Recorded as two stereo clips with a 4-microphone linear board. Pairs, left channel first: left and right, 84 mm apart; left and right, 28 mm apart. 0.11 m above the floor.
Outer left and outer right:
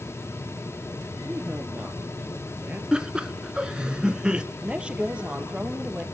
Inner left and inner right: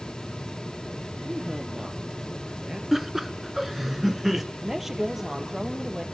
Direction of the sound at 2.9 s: 10° right (ahead or behind).